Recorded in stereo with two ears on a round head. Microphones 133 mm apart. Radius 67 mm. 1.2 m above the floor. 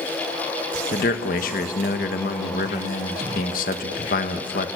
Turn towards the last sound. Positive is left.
turn(degrees=60)  # may be behind; listen again after turning